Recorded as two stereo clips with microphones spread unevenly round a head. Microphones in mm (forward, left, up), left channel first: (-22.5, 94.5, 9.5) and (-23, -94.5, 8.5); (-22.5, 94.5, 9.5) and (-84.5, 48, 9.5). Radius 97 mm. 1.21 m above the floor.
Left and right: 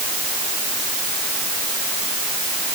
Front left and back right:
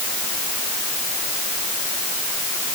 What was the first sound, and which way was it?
Only background noise.